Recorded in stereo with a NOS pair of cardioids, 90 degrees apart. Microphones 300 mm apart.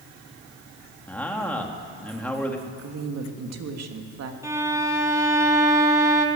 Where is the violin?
10° right, 3 m.